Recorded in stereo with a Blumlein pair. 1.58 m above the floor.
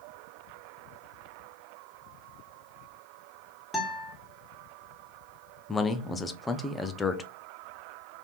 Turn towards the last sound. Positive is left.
turn(degrees=10)